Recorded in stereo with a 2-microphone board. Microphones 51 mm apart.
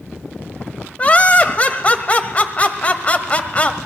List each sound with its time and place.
1.0 s laughter: 30° left (ahead or behind), 1.2 m